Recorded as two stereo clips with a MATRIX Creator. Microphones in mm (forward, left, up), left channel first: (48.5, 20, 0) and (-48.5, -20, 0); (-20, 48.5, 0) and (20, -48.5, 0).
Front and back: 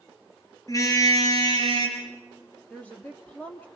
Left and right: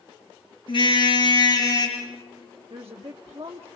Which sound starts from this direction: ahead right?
A woman speaking, at 2.7 s.